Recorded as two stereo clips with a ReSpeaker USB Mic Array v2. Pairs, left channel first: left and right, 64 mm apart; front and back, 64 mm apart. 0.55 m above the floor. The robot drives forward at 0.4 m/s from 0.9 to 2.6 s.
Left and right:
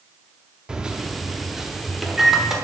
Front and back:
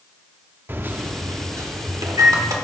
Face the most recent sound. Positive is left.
turn(degrees=-175)